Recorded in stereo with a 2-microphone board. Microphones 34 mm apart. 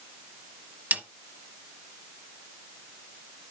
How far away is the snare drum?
About 0.8 m.